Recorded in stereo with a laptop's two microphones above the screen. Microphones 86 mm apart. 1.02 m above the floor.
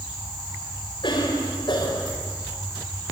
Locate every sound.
1.0 s a cough: 65° left (ahead or behind), 4.5 m